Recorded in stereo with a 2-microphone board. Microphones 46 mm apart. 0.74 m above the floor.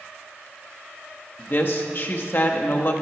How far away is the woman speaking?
About 0.9 m.